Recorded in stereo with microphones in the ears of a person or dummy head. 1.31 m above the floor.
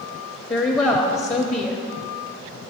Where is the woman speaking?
20° left (ahead or behind), 0.6 m.